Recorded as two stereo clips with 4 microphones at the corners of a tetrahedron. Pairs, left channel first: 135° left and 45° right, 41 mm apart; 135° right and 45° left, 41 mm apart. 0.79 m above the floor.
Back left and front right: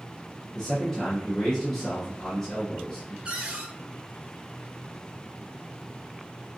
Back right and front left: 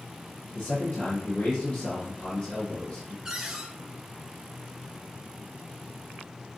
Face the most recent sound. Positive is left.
turn(degrees=-10)